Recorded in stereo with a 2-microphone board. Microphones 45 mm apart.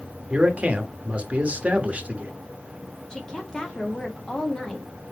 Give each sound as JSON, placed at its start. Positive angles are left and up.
{"t": 0.3, "sound": "a man speaking", "side_deg": -30, "distance_m": 0.8}
{"t": 3.1, "sound": "a woman speaking", "side_deg": 20, "distance_m": 1.2}